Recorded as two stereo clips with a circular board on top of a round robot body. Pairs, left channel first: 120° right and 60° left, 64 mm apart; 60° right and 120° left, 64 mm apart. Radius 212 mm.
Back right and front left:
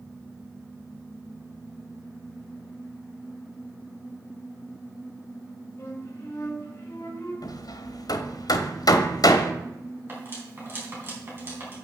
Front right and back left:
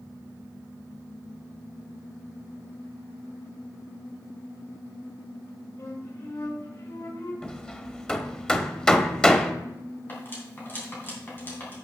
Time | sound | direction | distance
5.8 | a flute | 70° right | 4.5 m
7.4 | hammering | 140° right | 1.0 m
10.1 | cutlery clinking | straight ahead | 3.5 m